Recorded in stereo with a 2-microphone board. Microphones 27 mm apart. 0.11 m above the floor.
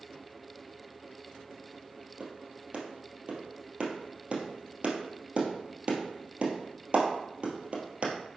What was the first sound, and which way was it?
A clap, 35° right (ahead or behind).